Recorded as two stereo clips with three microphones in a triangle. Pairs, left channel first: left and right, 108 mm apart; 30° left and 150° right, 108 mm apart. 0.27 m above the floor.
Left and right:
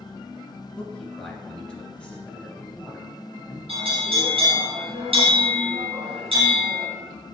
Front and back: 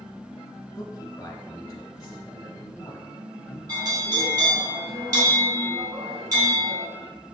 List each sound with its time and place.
0.8 s a man speaking: 25° left, 1.5 m
3.7 s a bell: 100° right, 3 m